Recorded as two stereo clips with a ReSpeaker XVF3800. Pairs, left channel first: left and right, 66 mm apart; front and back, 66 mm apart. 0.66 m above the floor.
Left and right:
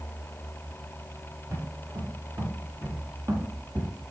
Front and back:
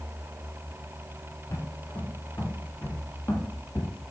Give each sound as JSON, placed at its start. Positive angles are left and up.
{"t": 1.5, "sound": "footsteps", "azimuth_deg": -45, "distance_m": 5.5}